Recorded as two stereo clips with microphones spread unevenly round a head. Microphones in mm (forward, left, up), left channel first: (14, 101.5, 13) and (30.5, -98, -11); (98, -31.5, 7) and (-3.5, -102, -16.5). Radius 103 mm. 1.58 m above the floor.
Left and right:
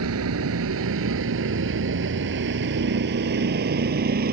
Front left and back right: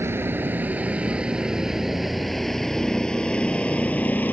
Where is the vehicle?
75° right; by 4.3 s 40° right.